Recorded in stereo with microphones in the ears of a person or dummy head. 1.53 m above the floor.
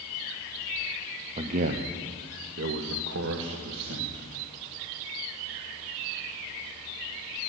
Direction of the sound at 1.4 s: 30° right (ahead or behind).